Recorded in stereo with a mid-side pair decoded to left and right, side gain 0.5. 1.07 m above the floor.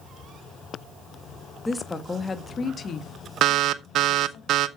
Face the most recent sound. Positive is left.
turn(degrees=-60)